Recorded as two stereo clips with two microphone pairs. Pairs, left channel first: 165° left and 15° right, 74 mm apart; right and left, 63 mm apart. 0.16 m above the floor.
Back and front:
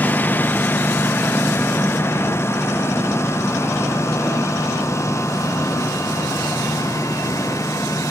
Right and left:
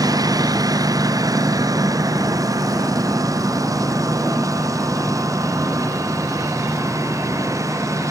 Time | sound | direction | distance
0.0 | a lawn mower | 100° left | ?